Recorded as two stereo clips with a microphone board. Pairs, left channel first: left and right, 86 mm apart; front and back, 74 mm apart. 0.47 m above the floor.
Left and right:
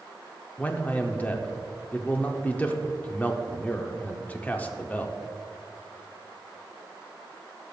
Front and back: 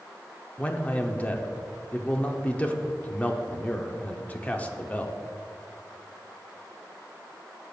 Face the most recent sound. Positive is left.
turn(degrees=40)